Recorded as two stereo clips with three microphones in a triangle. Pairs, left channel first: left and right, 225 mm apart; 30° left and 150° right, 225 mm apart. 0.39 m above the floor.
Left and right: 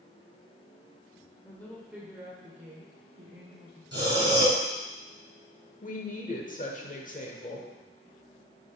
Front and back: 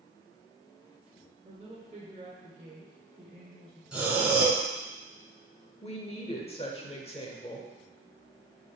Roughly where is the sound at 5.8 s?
Left.